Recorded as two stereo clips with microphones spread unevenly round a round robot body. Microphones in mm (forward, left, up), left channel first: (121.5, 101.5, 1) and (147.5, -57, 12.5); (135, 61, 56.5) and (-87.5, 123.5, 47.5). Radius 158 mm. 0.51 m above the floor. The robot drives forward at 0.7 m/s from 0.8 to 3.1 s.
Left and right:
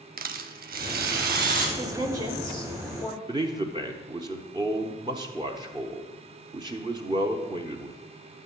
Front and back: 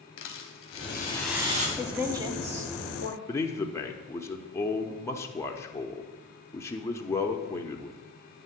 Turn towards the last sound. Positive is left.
turn(degrees=-80)